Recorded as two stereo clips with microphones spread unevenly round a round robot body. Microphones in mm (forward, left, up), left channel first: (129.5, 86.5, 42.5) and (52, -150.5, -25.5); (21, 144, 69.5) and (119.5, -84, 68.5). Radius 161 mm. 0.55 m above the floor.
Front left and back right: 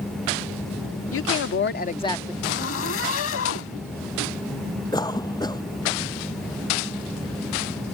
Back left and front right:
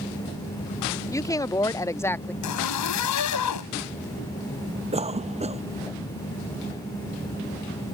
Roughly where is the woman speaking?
Ahead left.